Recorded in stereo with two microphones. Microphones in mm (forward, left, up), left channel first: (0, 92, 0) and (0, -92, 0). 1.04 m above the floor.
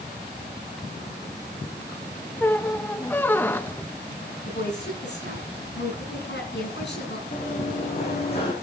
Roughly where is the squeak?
Centre.